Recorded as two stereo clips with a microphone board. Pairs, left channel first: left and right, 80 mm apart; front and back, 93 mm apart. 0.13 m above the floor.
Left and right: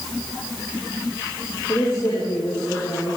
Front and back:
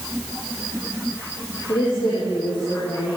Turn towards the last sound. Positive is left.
turn(degrees=35)